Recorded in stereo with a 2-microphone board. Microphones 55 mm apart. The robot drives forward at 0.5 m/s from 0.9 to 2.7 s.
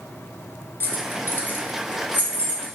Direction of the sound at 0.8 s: 40° left (ahead or behind).